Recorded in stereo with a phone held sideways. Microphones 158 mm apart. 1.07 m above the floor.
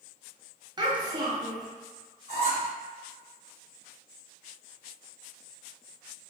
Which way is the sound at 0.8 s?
25° right (ahead or behind).